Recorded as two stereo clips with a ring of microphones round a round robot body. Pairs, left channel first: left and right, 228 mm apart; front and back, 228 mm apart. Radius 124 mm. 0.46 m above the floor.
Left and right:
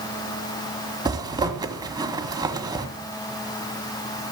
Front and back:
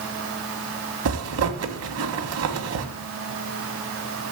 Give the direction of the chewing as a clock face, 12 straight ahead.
No chewing in this recording.